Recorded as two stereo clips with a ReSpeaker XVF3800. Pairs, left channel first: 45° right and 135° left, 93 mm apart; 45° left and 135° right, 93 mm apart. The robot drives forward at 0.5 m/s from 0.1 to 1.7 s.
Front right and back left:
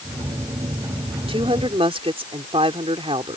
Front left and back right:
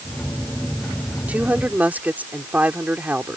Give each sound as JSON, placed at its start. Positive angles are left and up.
{"t": 1.3, "sound": "a woman speaking", "azimuth_deg": 150}